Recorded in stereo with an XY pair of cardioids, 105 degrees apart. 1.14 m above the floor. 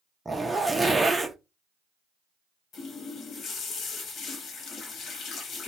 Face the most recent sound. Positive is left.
turn(degrees=65)